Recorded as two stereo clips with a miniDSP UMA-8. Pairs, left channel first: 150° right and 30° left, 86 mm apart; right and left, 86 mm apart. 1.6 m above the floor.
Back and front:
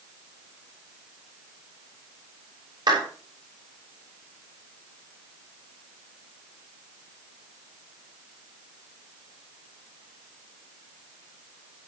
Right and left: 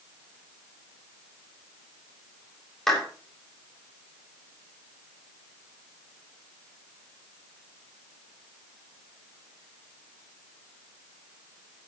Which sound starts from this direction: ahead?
A clap, at 2.9 s.